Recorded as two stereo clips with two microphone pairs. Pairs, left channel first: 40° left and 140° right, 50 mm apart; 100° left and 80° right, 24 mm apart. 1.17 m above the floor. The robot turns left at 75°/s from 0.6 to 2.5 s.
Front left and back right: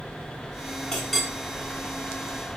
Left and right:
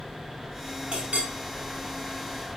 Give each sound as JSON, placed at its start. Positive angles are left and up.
{"t": 0.9, "sound": "a clink", "azimuth_deg": -25, "distance_m": 6.0}